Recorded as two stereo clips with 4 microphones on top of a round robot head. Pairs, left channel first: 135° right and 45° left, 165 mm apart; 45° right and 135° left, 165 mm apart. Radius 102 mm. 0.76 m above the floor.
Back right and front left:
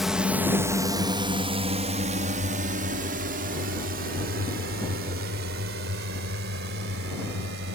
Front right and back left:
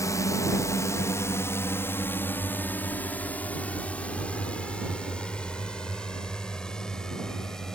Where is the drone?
40° right; by 7.7 s 40° left.